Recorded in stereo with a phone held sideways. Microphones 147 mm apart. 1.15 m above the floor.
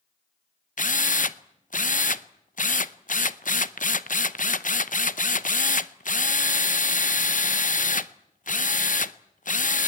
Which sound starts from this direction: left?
A drill, at 0.8 s.